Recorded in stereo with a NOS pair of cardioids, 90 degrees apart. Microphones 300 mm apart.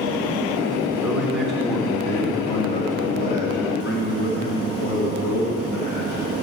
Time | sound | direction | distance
1.0 | a man speaking | 5° right | 4 m